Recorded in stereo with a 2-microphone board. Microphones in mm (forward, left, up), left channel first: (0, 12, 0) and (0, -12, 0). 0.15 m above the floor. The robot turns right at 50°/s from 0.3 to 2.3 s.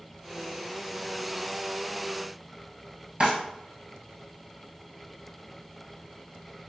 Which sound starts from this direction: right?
A drawer, at 3.2 s.